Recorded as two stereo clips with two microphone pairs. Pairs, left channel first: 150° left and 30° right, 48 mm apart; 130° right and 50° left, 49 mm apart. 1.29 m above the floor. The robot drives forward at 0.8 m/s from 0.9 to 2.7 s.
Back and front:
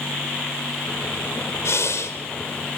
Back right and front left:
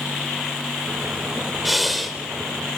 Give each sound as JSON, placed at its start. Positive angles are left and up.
{"t": 1.6, "sound": "breathing", "azimuth_deg": 140, "distance_m": 2.5}